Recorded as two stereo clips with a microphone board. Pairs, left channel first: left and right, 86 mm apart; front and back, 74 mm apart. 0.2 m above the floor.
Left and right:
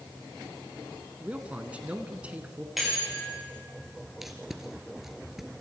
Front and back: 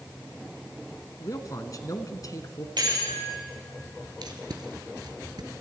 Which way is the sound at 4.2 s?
Straight behind.